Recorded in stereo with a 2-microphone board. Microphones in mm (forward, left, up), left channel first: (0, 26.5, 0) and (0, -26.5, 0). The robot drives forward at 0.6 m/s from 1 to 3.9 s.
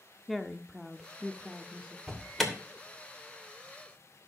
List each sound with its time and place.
0.3 s a woman speaking: centre (ahead or behind), 0.9 m
2.1 s an alarm: centre (ahead or behind), 2.5 m